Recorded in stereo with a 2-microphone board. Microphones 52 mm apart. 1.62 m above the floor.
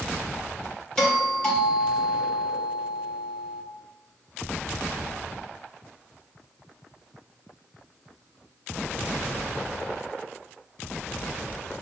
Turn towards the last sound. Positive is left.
turn(degrees=15)  # may be behind; listen again after turning